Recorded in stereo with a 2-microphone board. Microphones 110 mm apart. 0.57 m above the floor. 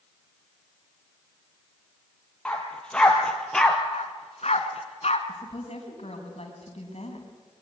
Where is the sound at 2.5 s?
10° left (ahead or behind), 4 m; by 3.8 s 5° left (ahead or behind), 2.5 m.